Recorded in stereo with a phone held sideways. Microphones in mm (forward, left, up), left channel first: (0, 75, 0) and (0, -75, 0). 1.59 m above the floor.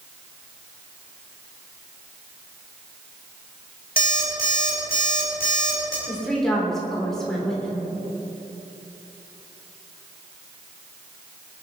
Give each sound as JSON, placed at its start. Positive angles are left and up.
{"t": 4.0, "sound": "an alarm clock", "side_deg": 75, "distance_m": 5.0}
{"t": 6.1, "sound": "a woman speaking", "side_deg": 5, "distance_m": 4.0}